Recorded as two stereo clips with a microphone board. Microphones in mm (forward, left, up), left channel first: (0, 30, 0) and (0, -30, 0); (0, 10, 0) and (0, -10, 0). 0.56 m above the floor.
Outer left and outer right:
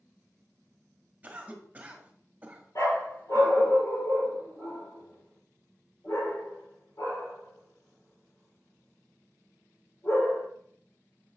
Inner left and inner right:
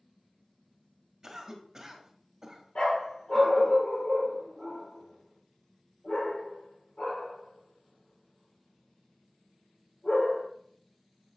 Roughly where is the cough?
Right.